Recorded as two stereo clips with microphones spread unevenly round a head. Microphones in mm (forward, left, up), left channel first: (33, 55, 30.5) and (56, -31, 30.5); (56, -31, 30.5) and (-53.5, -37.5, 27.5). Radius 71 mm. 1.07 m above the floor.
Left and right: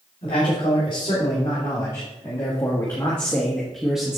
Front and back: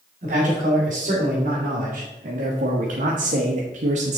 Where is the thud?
I don't hear a thud.